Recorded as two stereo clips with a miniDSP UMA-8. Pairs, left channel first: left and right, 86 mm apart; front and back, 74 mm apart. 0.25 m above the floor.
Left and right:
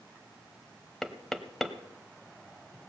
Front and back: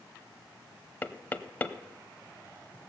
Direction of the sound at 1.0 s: 5° left.